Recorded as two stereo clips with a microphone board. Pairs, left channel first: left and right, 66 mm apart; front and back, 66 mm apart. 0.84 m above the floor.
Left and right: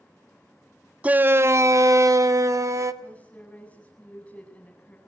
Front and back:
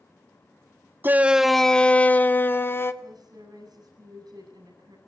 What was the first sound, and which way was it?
A shout, 145° right.